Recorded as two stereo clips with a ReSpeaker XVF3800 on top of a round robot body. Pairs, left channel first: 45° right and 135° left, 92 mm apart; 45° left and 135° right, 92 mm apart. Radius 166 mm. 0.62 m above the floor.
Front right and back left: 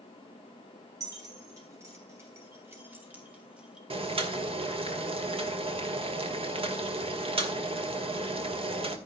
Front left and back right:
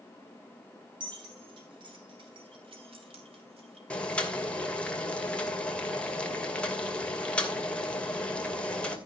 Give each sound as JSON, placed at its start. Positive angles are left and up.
{"t": 1.0, "sound": "keys jangling", "azimuth_deg": -170, "distance_m": 7.0}
{"t": 3.9, "sound": "boiling", "azimuth_deg": 125, "distance_m": 2.5}